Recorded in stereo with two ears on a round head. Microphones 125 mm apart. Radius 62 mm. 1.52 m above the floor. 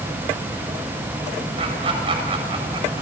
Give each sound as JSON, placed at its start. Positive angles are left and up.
{"t": 1.6, "sound": "laughter", "side_deg": -40, "distance_m": 8.0}